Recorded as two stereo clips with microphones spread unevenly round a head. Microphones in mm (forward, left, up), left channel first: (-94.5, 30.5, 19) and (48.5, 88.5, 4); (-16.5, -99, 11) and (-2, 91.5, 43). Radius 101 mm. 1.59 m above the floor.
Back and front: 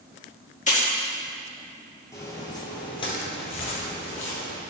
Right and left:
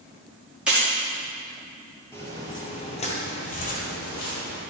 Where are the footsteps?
Straight behind, 1.7 m; by 4.6 s 130° right, 2.5 m.